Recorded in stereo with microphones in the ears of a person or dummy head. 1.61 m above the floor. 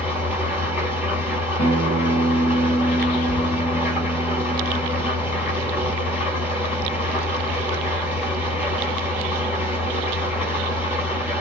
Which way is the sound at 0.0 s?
5° right (ahead or behind).